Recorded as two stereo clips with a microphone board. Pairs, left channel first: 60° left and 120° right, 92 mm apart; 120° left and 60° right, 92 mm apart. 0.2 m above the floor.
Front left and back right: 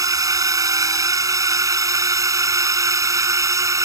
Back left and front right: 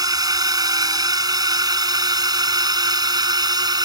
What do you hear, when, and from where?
0.0 s a drone: 85° right; by 3.9 s 80° right